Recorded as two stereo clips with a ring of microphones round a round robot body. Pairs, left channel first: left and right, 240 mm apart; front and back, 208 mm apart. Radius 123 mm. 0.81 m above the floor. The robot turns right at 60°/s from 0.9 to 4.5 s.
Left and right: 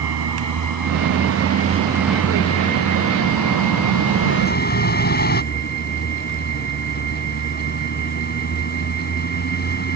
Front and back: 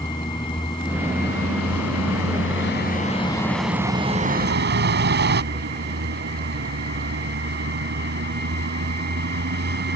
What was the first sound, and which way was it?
A vehicle, 75° right.